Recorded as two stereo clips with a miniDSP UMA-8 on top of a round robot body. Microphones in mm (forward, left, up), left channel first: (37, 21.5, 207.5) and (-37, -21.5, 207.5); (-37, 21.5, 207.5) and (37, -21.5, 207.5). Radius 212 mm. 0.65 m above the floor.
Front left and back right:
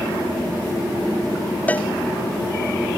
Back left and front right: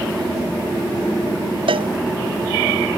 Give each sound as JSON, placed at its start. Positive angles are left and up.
{"t": 1.7, "sound": "a cowbell", "azimuth_deg": -45}